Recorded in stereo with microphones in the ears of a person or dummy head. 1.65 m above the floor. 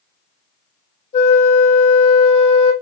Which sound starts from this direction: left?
A flute, at 1.1 s.